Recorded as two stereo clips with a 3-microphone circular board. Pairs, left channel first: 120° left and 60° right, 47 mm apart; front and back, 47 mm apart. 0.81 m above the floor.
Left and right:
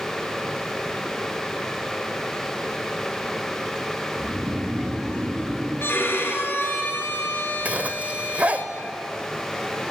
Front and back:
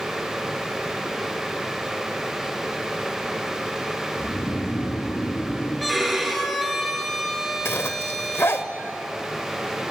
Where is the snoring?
5° right, 5 m.